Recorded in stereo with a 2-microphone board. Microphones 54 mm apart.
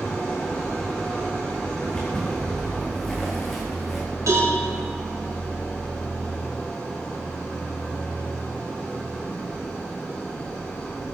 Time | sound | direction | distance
0.0 | an engine running | 20° left (ahead or behind) | 7 m
1.8 | footsteps | 15° left (ahead or behind) | 5 m
4.3 | a cowbell | 75° right (ahead or behind) | 6 m